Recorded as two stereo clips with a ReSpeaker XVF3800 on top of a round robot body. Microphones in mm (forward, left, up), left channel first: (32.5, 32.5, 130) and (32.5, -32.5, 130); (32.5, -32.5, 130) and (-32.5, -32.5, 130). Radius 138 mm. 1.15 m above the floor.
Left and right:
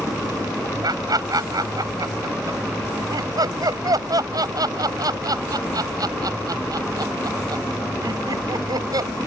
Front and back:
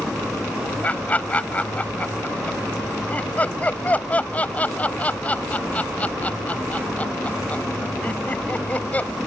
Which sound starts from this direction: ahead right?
Laughter, at 0.8 s.